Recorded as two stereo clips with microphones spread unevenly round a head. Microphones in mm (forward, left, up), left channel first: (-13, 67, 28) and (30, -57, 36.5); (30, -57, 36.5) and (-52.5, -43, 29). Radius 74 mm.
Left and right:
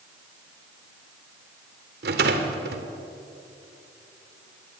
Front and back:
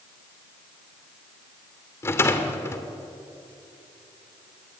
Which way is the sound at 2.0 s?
65° right.